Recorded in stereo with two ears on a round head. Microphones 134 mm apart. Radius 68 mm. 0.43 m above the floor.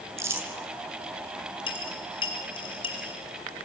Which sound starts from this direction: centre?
Crumpling, at 0.2 s.